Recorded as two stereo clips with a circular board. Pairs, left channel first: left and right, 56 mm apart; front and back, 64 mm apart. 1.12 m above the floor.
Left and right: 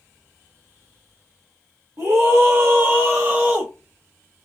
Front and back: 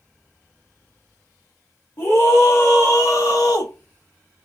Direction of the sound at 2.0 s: 50° right.